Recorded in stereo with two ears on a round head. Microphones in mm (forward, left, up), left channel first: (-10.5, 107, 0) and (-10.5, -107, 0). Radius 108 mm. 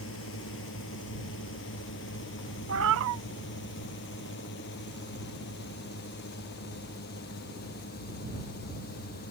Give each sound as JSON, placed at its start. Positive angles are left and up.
{"t": 0.0, "sound": "a drone", "side_deg": 60}
{"t": 2.7, "sound": "a cat meowing", "side_deg": -55}